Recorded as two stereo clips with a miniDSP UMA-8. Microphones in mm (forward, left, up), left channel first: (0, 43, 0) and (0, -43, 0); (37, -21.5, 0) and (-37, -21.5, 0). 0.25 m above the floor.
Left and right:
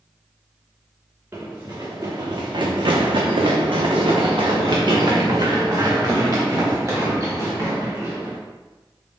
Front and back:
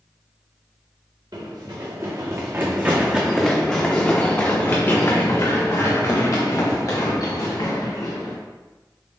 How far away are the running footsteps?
About 1.4 m.